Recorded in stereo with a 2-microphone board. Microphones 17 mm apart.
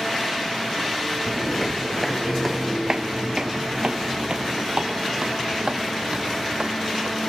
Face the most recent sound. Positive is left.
turn(degrees=-70)  # may be behind; listen again after turning